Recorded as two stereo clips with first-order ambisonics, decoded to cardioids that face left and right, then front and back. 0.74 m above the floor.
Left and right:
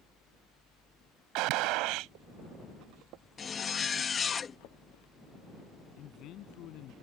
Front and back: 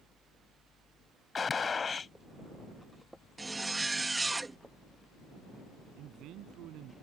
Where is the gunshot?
70° right.